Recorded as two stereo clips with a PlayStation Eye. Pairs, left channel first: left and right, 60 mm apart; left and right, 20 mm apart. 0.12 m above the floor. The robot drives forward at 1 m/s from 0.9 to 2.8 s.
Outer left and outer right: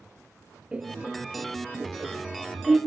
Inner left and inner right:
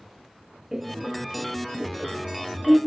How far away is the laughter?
About 2.5 m.